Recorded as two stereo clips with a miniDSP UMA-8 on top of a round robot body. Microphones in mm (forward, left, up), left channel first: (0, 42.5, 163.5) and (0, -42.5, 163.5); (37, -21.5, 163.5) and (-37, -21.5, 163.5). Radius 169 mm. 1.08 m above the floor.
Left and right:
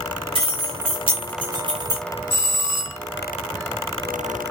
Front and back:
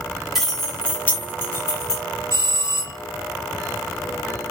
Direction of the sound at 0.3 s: 90° right.